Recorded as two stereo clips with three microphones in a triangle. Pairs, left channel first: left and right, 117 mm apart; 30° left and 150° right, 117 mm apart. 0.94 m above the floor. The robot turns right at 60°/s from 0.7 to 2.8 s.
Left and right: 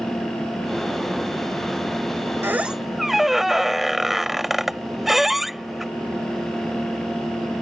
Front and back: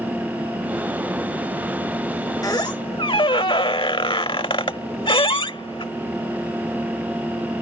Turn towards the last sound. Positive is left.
turn(degrees=0)